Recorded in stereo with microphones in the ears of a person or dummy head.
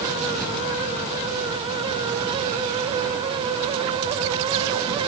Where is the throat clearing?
I don't hear throat clearing.